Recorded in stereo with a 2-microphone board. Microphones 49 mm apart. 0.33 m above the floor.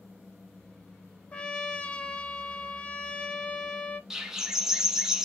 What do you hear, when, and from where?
1.3 s a trumpet: 25° left (ahead or behind), 0.7 m
4.1 s a bird: 10° right (ahead or behind), 0.8 m